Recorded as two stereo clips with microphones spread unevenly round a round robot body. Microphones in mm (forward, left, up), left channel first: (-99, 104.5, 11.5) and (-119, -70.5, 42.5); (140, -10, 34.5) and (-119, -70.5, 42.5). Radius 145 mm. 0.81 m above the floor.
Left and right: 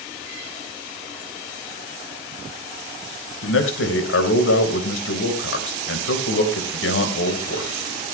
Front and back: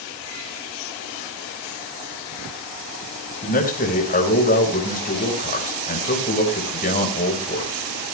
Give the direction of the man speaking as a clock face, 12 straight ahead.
9 o'clock.